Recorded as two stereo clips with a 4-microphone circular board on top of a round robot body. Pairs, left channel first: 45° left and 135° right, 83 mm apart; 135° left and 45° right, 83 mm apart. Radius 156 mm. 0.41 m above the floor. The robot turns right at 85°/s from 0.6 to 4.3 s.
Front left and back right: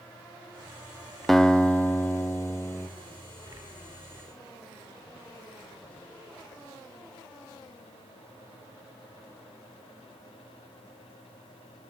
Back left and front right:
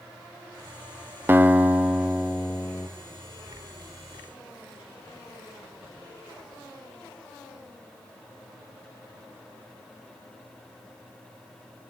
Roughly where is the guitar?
Ahead right.